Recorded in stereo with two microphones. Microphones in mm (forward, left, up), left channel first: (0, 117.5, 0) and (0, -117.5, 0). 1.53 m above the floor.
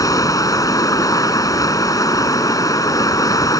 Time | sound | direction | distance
0.0 | running water | 15° left (ahead or behind) | ?